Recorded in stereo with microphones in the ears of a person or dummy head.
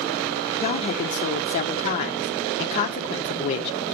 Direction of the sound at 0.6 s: 45° left (ahead or behind).